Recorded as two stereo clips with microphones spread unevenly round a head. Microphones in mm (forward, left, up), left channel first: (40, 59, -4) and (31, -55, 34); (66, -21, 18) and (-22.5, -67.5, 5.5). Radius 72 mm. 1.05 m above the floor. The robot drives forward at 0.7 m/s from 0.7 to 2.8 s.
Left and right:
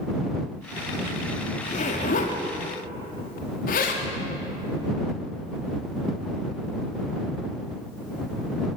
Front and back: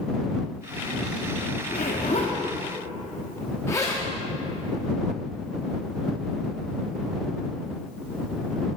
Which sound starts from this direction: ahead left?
A zipper, at 1.6 s.